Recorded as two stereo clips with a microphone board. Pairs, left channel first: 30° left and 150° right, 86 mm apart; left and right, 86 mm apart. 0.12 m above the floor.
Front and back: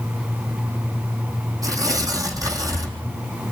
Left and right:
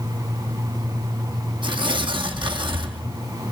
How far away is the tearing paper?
About 3 m.